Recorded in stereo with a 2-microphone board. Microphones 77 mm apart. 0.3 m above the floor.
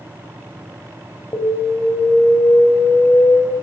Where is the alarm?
50° left (ahead or behind), 1.8 m.